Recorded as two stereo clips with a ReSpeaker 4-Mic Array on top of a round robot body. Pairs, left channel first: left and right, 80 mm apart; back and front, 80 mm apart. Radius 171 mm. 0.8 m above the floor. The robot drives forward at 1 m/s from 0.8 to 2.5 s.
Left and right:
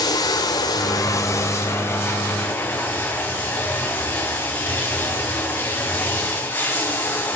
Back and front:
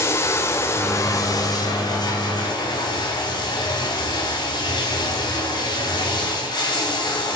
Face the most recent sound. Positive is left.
turn(degrees=155)